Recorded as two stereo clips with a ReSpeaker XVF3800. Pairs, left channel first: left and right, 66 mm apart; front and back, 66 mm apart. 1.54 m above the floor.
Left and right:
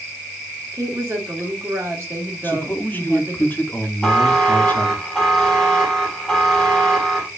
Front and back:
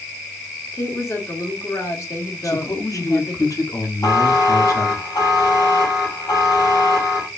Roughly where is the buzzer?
Ahead.